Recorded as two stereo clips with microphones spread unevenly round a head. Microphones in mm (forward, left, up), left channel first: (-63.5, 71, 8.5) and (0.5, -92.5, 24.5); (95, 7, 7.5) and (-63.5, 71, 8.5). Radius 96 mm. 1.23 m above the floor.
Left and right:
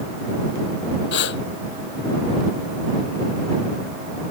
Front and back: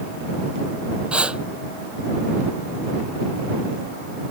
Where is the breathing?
75° left.